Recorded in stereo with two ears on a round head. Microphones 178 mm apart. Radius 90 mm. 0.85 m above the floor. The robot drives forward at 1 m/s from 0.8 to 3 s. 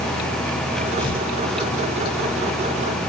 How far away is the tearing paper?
About 9 m.